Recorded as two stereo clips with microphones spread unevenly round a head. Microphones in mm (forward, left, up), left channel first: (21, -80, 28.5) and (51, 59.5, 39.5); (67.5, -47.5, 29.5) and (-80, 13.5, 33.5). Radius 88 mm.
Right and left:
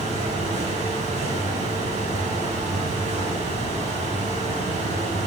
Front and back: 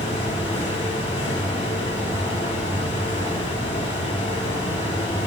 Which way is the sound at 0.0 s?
40° left.